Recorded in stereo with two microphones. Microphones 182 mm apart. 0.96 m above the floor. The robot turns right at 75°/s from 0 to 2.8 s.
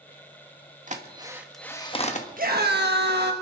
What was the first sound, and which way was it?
A drill, 45° right (ahead or behind).